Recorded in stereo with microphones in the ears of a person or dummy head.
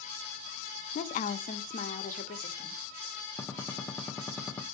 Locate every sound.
0.9 s a woman speaking: 45° left (ahead or behind), 0.9 m
3.4 s a gunshot: 15° left (ahead or behind), 0.8 m